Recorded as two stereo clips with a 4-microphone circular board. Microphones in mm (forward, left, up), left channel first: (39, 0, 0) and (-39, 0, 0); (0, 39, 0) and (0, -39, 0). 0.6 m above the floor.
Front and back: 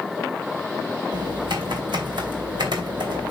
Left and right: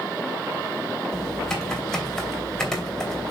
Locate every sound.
1.1 s typing on a keyboard: 175° left, 2.5 m